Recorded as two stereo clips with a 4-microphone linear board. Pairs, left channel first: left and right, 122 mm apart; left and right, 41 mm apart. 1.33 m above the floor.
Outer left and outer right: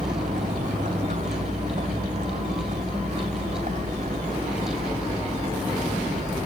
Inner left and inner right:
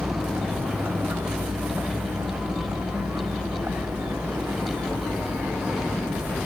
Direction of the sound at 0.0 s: 70° right (ahead or behind).